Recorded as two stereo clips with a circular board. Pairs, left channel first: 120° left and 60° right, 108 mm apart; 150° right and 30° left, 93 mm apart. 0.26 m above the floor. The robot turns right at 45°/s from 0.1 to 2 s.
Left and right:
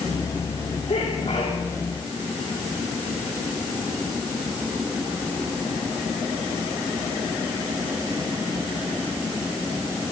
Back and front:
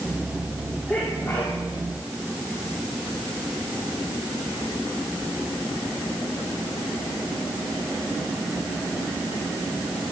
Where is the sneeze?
115° left, 8.5 m; by 1.6 s 150° left, 8.5 m.